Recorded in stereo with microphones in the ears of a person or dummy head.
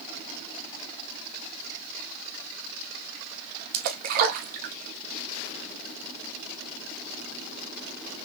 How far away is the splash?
About 0.9 m.